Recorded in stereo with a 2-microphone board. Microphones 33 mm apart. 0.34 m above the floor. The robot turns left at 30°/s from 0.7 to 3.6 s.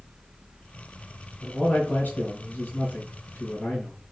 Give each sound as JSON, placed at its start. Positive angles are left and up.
{"t": 1.4, "sound": "a man speaking", "azimuth_deg": 140, "distance_m": 3.5}